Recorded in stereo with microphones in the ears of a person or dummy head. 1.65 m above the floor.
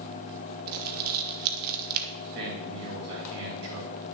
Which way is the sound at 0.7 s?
50° right (ahead or behind).